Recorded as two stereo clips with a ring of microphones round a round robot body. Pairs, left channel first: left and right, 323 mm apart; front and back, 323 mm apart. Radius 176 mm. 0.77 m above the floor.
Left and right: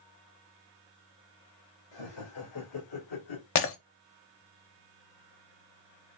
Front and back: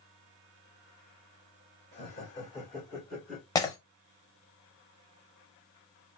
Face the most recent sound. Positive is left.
turn(degrees=75)